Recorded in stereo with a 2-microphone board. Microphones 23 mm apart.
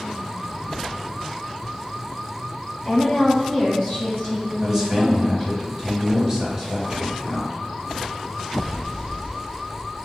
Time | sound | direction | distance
2.9 | a woman speaking | 5° left (ahead or behind) | 1.7 m
4.6 | a man speaking | 20° right (ahead or behind) | 1.0 m